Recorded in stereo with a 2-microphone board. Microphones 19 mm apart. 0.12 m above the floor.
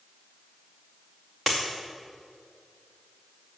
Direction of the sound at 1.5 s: 5° right (ahead or behind).